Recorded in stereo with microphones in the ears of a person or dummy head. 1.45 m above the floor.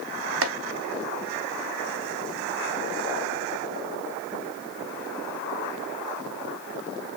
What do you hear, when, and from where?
0.4 s chopping: 65° right (ahead or behind), 0.5 m